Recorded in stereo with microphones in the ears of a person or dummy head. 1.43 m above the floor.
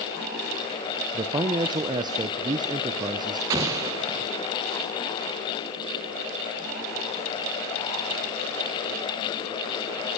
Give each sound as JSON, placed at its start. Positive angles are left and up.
{"t": 1.1, "sound": "a man speaking", "side_deg": -25, "distance_m": 0.7}
{"t": 3.5, "sound": "an explosion", "side_deg": -15, "distance_m": 0.6}